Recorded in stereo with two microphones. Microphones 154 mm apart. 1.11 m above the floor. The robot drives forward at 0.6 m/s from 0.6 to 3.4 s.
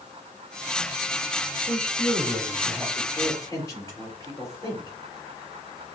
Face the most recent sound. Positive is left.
turn(degrees=20)  # may be behind; listen again after turning